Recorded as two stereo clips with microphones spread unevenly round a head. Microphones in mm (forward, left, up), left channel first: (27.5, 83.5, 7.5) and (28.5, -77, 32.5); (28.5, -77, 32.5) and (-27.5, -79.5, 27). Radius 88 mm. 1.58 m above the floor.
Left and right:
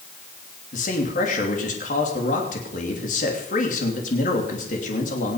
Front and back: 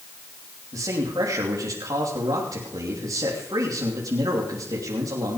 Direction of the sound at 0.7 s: 140° left.